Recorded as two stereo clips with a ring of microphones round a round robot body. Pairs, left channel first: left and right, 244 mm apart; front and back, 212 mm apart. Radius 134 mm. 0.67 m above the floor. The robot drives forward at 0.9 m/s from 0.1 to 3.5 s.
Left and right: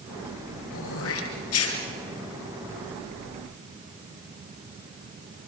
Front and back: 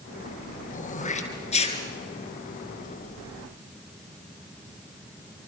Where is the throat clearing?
55° left, 5 m; by 1.8 s 65° left, 4.5 m.